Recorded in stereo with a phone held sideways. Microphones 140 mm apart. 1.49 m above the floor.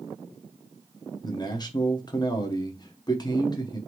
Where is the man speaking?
30° left (ahead or behind), 0.8 m.